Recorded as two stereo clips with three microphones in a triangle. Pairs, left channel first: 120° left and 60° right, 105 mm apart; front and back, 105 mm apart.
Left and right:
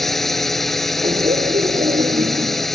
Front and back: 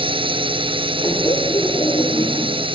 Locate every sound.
0.0 s a drone: 150° right
1.0 s laughter: 60° right